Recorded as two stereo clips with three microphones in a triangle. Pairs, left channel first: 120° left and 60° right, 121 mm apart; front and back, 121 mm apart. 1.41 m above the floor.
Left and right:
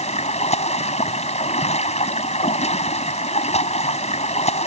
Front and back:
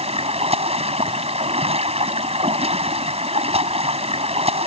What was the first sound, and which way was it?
Running water, 145° left.